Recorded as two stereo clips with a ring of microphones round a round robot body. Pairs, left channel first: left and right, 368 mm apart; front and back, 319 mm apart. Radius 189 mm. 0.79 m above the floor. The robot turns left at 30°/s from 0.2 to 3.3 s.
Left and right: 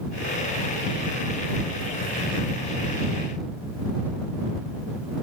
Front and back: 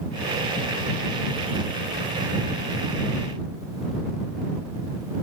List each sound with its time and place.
Only background noise.